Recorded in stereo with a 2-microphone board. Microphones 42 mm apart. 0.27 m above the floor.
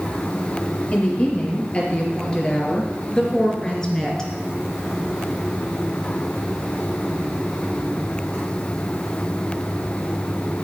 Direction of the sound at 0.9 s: 30° left (ahead or behind).